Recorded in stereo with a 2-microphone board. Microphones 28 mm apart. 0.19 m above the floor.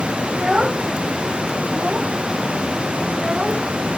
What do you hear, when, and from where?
0.3 s a child speaking: 25° right (ahead or behind); by 3.7 s 35° right (ahead or behind)